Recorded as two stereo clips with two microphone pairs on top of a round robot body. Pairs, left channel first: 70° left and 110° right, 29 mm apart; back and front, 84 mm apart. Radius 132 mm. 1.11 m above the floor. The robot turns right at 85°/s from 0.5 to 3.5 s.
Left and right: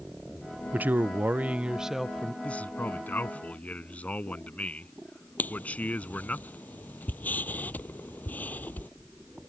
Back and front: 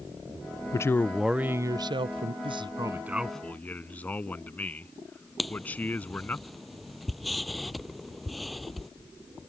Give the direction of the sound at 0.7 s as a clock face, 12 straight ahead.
5 o'clock.